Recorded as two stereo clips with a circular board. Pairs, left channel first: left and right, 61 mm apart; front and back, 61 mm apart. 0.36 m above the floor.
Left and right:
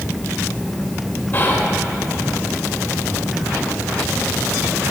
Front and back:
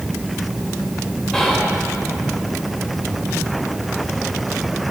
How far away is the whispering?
About 1.0 m.